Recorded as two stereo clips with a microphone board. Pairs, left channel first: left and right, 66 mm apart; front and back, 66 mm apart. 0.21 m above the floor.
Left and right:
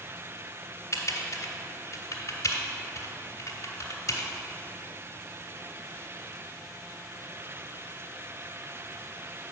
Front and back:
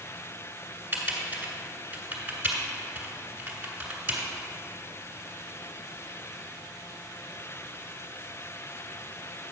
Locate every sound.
0.9 s typing on a keyboard: 120° left, 1.4 m